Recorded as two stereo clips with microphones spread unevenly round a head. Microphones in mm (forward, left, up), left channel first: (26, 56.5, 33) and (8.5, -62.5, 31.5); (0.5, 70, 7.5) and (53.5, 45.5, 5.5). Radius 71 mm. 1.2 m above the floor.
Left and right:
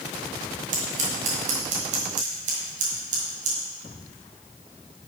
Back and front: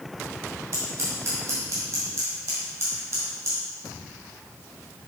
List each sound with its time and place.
0.7 s scissors: 80° right, 1.7 m